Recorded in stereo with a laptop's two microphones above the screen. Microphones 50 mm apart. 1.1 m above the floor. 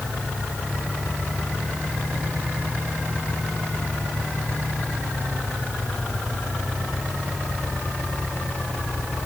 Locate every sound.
Only background noise.